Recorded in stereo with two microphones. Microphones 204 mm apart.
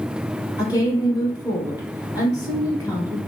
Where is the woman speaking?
20° left (ahead or behind), 1.0 m.